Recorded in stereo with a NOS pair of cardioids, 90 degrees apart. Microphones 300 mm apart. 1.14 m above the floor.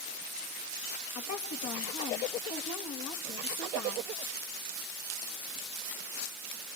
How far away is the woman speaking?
About 2.0 m.